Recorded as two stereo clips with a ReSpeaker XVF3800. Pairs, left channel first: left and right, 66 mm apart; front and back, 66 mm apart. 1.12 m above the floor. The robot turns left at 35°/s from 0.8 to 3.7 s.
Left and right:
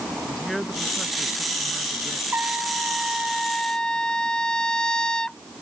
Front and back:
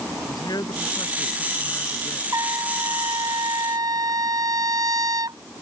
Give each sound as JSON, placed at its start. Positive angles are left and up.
{"t": 0.3, "sound": "a man speaking", "azimuth_deg": 5}
{"t": 2.3, "sound": "a trumpet", "azimuth_deg": -145}